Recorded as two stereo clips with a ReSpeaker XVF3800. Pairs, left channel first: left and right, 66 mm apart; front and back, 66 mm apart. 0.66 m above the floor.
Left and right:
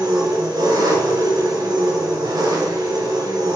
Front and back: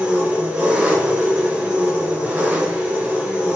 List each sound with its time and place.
0.0 s an engine running: 110° right, 3 m